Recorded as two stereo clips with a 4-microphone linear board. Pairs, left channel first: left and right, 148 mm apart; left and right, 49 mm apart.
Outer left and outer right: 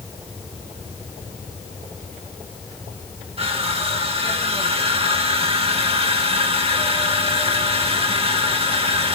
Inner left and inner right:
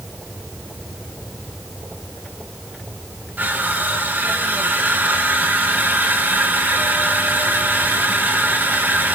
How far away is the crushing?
About 2 m.